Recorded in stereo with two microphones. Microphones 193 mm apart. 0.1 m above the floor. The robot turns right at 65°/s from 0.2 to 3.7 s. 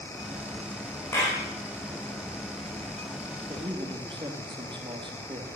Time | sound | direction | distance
1.1 | a clap | 15° left (ahead or behind) | 7 m
3.5 | a man speaking | 40° right (ahead or behind) | 3 m